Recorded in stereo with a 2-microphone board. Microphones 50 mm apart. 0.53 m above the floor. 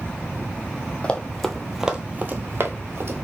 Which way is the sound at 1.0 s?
20° left (ahead or behind).